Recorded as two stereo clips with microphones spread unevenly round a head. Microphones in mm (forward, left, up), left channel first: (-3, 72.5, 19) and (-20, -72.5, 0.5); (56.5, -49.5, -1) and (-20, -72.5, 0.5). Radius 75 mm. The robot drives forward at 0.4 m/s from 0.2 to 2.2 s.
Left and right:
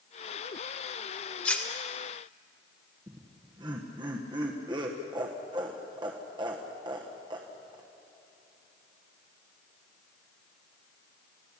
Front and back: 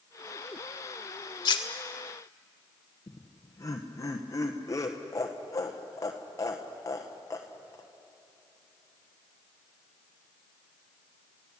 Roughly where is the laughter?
Ahead right.